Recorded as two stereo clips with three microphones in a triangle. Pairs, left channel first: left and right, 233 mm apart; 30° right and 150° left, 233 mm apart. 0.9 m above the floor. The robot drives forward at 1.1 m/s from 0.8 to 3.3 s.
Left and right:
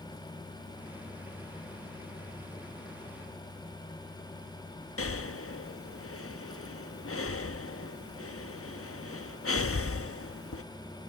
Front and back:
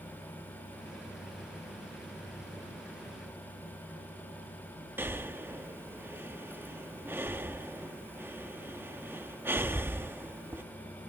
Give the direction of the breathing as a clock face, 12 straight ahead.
10 o'clock.